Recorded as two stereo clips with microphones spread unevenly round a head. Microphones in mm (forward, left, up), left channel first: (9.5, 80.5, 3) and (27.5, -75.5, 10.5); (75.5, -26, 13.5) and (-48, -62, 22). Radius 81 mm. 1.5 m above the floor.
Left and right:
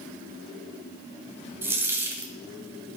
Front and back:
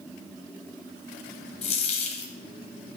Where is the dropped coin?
10° right, 2 m.